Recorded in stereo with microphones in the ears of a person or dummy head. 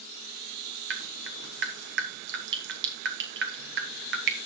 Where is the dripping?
50° right (ahead or behind), 1.1 m.